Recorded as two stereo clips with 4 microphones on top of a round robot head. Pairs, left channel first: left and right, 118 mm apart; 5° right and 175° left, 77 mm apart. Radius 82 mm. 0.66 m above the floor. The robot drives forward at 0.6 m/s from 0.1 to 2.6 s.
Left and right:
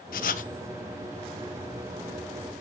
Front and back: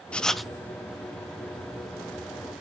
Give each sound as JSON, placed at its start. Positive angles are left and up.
{"t": 0.1, "sound": "writing", "azimuth_deg": 70, "distance_m": 0.7}